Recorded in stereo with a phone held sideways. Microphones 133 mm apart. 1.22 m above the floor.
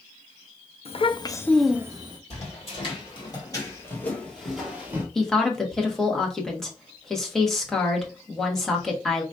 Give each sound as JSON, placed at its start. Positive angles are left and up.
{"t": 0.8, "sound": "a child speaking", "side_deg": 50, "distance_m": 0.7}
{"t": 2.3, "sound": "footsteps", "side_deg": 50, "distance_m": 2.5}
{"t": 5.2, "sound": "a woman speaking", "side_deg": 5, "distance_m": 1.4}